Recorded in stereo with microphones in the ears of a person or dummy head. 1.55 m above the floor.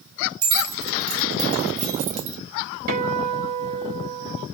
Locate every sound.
0.4 s keys jangling: 75° right (ahead or behind), 1.5 m; by 2.4 s 40° right (ahead or behind), 1.0 m
2.9 s a guitar: 45° right (ahead or behind), 1.1 m